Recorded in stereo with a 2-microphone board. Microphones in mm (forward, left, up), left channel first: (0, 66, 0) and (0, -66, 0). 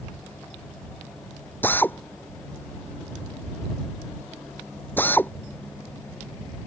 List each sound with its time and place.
1.6 s a drill: 15° left (ahead or behind)